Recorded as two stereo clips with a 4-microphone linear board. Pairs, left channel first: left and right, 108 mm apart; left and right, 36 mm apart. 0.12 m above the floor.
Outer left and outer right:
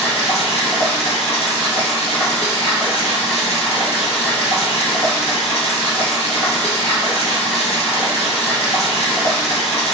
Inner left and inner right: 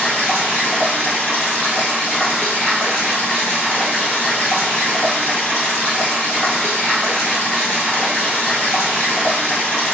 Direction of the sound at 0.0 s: 75° left (ahead or behind).